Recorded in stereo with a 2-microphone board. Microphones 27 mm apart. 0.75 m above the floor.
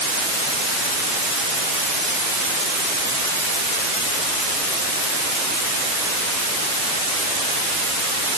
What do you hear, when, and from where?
Only background noise.